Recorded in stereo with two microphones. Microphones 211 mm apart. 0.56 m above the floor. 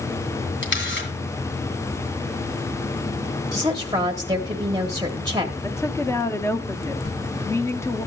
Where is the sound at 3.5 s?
20° right (ahead or behind), 1.2 m.